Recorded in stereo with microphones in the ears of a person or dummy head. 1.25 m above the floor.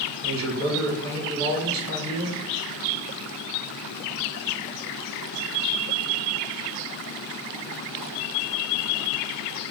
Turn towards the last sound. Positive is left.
turn(degrees=-75)  # may be behind; listen again after turning